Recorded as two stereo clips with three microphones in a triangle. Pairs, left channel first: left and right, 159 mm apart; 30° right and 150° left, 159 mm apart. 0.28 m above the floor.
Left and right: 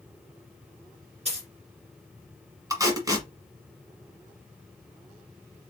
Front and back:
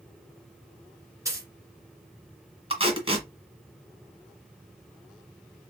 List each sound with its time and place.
1.2 s a dropped coin: 140° right, 1.6 m
2.7 s tape being pulled: 155° right, 1.4 m